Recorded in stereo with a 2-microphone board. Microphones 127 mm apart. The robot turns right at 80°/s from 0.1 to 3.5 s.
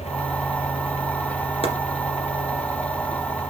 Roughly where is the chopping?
Left.